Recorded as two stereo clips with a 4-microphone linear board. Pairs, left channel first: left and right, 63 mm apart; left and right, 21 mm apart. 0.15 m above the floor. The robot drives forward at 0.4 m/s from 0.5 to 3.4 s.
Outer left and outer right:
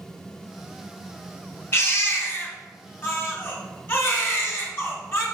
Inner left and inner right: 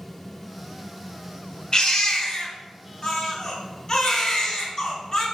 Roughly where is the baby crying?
Left.